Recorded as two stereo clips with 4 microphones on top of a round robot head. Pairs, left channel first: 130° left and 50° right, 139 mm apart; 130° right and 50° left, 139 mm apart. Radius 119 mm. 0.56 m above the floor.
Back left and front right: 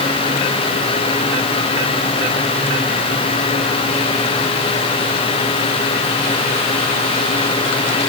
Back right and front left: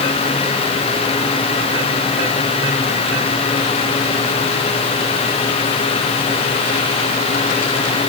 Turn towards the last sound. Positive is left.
No sound to turn to.